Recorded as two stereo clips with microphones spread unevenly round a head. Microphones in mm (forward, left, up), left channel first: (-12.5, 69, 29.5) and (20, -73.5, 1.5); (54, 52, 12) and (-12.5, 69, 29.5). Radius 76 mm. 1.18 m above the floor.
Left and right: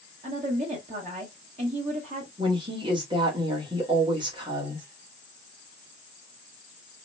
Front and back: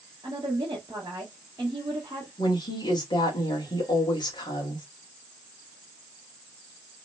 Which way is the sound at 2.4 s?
15° right.